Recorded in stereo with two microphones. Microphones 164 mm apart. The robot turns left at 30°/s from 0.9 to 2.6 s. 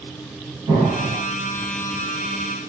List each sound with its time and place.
0.7 s an explosion: 25° right (ahead or behind), 1.8 m; by 1.2 s 30° right (ahead or behind), 1.8 m